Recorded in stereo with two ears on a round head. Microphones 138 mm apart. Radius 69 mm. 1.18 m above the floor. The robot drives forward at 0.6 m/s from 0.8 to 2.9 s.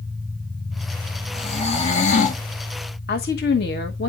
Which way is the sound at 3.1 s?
80° left.